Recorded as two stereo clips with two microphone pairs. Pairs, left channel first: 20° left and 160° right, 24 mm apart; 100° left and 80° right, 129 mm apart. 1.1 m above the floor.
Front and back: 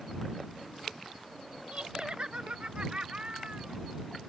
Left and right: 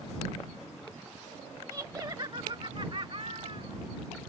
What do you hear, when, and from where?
1.7 s laughter: 140° right; by 3.8 s 120° right